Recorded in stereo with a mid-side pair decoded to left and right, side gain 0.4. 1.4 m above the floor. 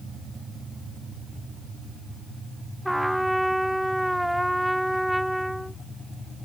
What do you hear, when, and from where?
2.9 s a trumpet: 5° right